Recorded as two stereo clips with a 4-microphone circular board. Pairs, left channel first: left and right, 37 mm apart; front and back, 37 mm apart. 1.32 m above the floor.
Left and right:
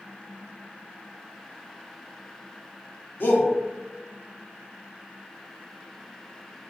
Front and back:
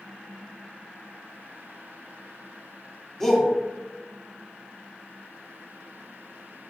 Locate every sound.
3.2 s a shout: 80° left, 0.7 m